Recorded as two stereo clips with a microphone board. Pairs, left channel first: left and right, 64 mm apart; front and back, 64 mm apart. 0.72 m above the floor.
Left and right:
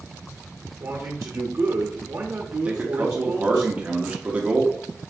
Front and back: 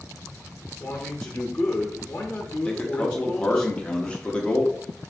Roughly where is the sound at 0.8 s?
Ahead right.